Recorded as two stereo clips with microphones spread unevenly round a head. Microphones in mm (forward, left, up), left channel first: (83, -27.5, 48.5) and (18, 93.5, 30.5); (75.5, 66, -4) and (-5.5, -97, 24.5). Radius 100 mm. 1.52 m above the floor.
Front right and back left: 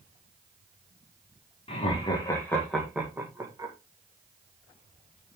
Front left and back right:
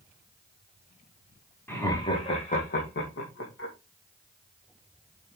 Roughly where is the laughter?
Ahead.